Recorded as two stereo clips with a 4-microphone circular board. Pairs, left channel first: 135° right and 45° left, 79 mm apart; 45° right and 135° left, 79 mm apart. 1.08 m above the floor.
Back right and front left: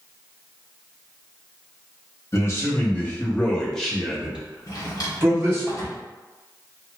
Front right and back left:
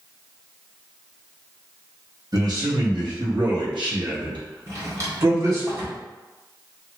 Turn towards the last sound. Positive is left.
turn(degrees=-175)